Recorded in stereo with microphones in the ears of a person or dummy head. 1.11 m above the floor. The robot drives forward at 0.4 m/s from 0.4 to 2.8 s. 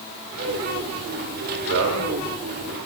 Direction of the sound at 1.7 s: 65° right (ahead or behind).